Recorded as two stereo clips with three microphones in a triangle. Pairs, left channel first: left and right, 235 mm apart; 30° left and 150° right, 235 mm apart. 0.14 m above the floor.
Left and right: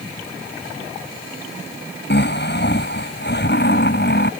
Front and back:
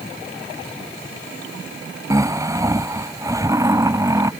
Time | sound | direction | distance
2.1 | snoring | 135° left | ?